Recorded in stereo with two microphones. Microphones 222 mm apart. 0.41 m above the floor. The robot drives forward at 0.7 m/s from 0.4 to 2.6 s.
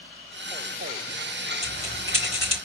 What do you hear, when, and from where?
1.6 s a bell: 30° left (ahead or behind), 3.5 m; by 2.5 s 25° left (ahead or behind), 4 m